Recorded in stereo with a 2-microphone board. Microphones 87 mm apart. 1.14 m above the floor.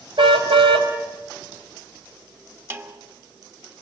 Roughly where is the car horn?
Right.